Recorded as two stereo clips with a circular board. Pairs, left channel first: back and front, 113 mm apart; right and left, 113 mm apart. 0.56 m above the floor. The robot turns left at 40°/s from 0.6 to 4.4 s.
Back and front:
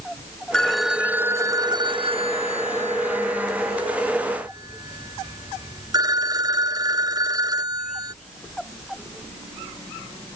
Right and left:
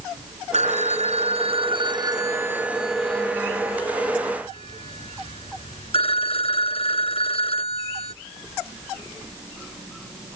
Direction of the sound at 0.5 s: 95° left.